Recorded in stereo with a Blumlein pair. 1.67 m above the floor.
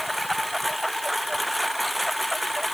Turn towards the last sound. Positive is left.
turn(degrees=0)